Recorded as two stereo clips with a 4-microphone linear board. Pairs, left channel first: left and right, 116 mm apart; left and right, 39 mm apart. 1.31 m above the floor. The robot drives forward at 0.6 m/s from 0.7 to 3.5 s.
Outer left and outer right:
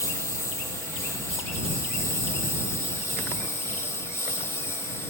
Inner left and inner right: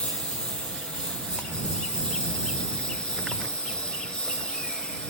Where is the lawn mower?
25° left (ahead or behind); by 5.1 s 20° left (ahead or behind).